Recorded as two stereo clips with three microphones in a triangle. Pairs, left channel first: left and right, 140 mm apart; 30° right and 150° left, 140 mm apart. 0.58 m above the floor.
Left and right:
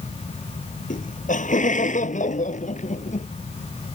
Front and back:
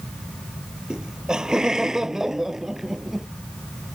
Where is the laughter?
65° left; by 3.3 s 60° left.